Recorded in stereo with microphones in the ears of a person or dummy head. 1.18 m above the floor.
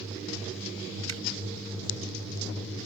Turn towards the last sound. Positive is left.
turn(degrees=-85)